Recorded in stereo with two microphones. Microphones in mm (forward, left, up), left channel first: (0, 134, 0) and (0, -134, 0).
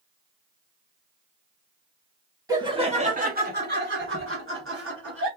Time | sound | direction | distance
2.5 | laughter | 10° right (ahead or behind) | 1.0 m